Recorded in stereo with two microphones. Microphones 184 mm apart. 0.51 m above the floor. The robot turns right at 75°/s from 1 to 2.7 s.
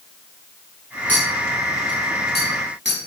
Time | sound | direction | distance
1.1 | a clink | 10° left (ahead or behind) | 3 m